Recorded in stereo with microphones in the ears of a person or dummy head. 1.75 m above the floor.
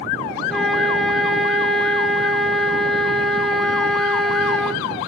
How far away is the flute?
About 0.7 m.